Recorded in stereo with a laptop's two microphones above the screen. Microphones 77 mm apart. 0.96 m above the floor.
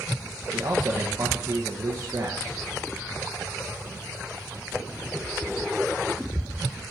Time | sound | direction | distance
0.5 | a man speaking | 40° right (ahead or behind) | 0.8 m